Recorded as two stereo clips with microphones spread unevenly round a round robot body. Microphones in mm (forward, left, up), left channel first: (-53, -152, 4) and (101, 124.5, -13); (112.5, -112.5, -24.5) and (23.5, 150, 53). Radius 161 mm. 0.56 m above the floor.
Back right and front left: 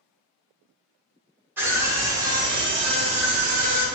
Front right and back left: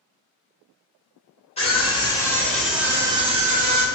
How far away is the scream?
About 1.4 m.